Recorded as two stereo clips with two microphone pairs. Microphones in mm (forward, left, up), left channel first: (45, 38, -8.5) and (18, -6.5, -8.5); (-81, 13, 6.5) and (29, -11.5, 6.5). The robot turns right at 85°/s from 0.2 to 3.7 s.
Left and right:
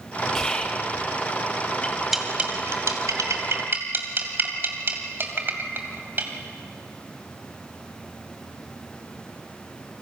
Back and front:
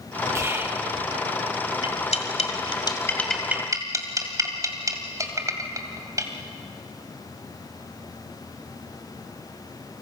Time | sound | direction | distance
0.3 | whispering | straight ahead | 1.1 m
1.8 | cutlery clinking | 130° left | 2 m